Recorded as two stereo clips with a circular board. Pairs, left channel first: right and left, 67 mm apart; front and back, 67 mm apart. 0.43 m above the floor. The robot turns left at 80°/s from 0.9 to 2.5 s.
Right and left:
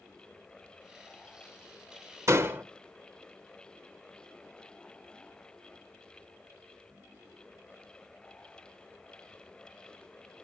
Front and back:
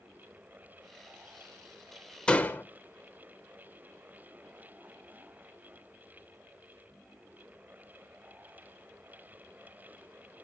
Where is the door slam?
70° left, 0.9 m; by 2.6 s 55° left, 0.9 m.